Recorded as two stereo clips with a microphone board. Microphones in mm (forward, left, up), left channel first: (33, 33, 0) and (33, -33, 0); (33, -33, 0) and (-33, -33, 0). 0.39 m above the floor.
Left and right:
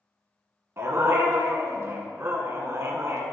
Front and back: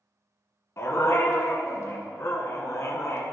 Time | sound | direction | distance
0.8 | a dog barking | 45° right | 1.0 m